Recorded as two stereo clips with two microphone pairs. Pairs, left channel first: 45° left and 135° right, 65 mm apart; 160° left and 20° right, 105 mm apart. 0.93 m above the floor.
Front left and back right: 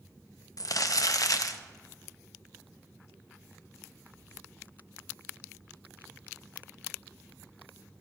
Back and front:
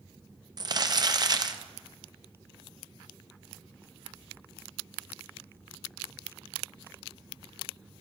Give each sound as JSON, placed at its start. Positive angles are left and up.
{"t": 0.6, "sound": "crumpling", "azimuth_deg": 30, "distance_m": 0.5}